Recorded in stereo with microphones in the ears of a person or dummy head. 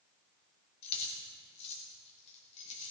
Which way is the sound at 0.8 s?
35° left (ahead or behind).